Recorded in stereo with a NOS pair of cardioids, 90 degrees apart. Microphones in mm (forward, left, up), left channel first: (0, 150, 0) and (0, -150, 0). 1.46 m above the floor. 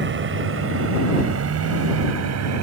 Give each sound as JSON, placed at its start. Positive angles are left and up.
{"t": 0.0, "sound": "a vehicle", "azimuth_deg": -40}